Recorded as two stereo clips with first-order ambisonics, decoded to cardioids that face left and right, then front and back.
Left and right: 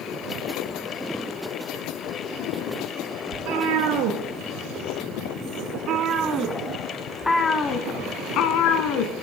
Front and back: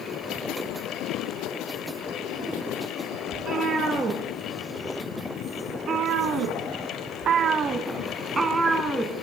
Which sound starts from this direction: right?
A cat meowing, at 3.3 s.